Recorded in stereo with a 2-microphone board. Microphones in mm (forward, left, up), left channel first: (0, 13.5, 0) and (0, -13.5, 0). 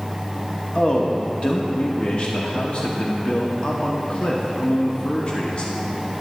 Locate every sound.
0.8 s a man speaking: 40° left (ahead or behind), 1.1 m